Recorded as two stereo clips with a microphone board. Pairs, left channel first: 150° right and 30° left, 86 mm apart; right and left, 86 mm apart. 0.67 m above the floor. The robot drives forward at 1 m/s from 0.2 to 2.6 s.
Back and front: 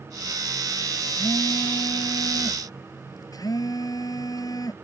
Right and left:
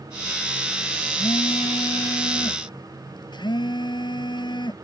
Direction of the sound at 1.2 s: 105° right.